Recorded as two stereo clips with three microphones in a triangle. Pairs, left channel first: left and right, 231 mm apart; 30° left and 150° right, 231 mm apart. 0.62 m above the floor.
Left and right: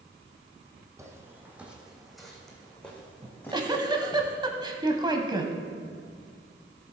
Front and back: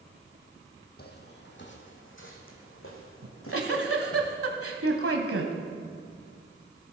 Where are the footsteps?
15° right, 1.6 m; by 4.2 s 10° left, 3 m.